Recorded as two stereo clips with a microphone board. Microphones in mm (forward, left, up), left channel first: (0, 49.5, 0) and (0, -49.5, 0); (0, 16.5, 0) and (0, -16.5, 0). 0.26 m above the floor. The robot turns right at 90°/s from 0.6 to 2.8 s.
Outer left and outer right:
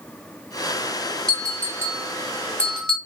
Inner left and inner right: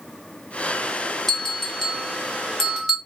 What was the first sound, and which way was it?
A bell, 10° left (ahead or behind).